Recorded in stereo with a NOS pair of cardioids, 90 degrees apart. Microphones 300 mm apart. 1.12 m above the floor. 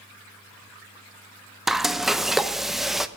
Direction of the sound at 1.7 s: Straight ahead.